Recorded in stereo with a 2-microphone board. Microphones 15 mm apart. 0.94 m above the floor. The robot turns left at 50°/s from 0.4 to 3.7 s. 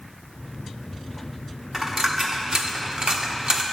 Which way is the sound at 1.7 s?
20° right (ahead or behind).